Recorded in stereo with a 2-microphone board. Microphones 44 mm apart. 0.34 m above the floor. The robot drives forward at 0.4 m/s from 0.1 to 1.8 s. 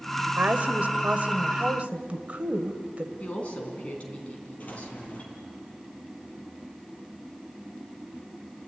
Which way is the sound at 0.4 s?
40° right (ahead or behind).